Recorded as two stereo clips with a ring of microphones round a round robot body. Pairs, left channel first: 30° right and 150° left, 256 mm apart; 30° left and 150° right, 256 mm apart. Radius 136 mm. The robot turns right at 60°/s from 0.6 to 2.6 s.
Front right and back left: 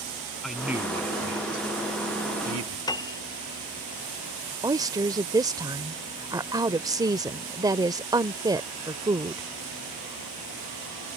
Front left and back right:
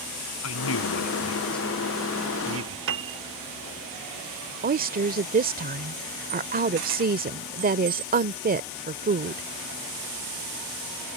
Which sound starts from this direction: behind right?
A woman speaking, at 4.6 s.